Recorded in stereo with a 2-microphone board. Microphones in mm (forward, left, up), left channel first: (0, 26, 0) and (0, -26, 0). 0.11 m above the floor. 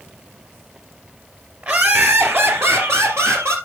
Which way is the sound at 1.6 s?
35° right (ahead or behind).